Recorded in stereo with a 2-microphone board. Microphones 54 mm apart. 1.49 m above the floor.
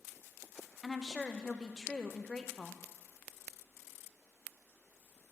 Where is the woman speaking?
10° left (ahead or behind), 0.7 m.